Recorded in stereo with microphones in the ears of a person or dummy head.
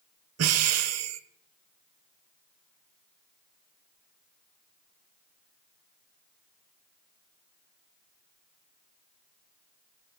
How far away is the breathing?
About 0.7 m.